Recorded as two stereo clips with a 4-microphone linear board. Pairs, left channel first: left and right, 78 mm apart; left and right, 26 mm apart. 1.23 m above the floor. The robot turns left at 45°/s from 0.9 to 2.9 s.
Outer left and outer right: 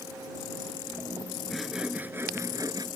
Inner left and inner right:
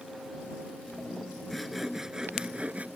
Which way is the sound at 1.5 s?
Straight ahead.